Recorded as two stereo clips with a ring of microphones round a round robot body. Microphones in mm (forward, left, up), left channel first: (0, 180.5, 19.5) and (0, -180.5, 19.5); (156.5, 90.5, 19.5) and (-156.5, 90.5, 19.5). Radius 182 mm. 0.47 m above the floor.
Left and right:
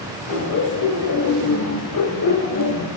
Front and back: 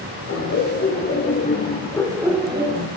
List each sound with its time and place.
0.3 s laughter: 45° left, 2.5 m; by 2.9 s 135° left, 1.3 m